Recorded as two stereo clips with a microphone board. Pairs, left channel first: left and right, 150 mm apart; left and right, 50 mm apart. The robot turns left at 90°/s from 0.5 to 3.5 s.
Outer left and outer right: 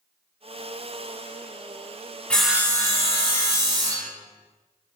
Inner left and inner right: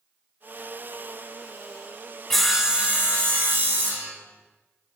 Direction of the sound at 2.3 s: 10° left.